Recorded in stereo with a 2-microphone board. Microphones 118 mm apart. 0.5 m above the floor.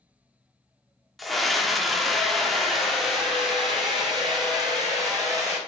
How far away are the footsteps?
No footsteps in this recording.